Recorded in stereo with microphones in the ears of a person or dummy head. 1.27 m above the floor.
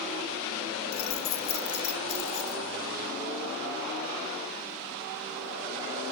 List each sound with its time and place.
0.9 s keys jangling: 30° left (ahead or behind), 0.9 m